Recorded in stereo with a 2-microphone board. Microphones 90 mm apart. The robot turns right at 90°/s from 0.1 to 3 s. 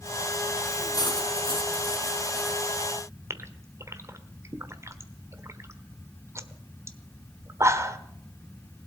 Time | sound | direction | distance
0.9 | cutlery clinking | 45° left | 3 m
3.3 | a gasp | 30° right (ahead or behind) | 1.2 m